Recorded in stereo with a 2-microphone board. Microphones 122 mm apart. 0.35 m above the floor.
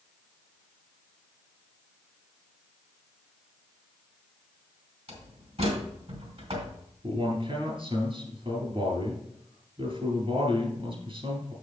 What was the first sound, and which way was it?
A door slam, 60° right (ahead or behind).